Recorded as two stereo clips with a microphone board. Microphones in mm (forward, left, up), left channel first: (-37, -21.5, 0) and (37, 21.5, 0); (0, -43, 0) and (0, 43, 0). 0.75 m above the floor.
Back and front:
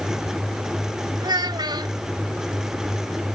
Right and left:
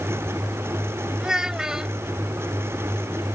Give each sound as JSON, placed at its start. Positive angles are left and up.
{"t": 1.2, "sound": "a child speaking", "azimuth_deg": 10}